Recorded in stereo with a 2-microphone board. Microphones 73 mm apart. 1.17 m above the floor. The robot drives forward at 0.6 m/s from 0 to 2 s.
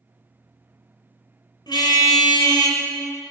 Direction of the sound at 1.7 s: 80° left.